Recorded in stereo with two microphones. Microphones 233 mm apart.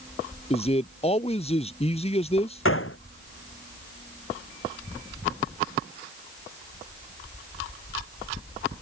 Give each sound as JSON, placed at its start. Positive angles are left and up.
{"t": 0.5, "sound": "a man speaking", "side_deg": 25}
{"t": 2.6, "sound": "a gunshot", "side_deg": 65}